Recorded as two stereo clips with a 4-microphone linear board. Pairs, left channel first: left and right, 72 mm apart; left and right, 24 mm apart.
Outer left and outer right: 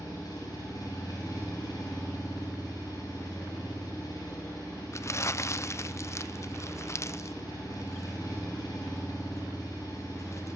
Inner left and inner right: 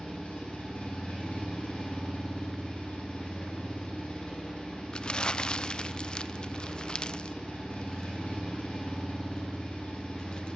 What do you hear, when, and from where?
0.0 s an engine running: 60° left (ahead or behind), 7.5 m
4.9 s crumpling: 40° left (ahead or behind), 0.5 m